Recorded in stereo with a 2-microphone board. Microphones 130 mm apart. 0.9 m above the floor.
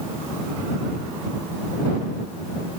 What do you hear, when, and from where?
Only background noise.